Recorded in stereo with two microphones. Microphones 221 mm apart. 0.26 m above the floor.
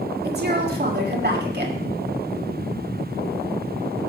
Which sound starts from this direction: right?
A woman speaking, at 0.2 s.